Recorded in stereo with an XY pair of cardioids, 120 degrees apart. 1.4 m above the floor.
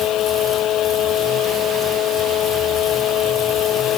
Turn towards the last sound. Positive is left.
turn(degrees=65)